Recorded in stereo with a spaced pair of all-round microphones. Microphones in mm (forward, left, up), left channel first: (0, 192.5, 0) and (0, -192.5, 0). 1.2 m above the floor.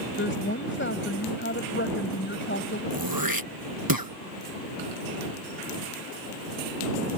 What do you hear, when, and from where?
0.2 s a woman speaking: 30° left (ahead or behind)
2.9 s throat clearing: 65° right (ahead or behind)